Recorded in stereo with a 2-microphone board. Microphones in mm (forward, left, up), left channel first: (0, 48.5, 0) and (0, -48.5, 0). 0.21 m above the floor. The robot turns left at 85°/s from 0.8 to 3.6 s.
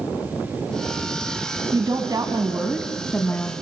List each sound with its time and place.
1.7 s a woman speaking: 75° right, 1.5 m; by 3.5 s 135° left, 1.5 m